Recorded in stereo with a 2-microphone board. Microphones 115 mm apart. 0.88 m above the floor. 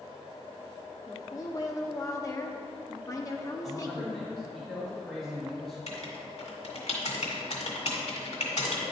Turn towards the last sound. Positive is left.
turn(degrees=70)  # may be behind; listen again after turning